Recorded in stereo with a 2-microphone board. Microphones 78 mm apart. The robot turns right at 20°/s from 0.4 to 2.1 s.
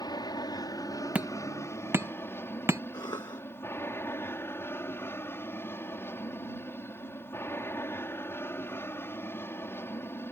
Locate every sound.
0.0 s an aircraft: 115° left; by 10.3 s 150° left
1.1 s hammering: 20° right (ahead or behind); by 2.8 s 35° right (ahead or behind)
2.9 s a cough: 65° left (ahead or behind)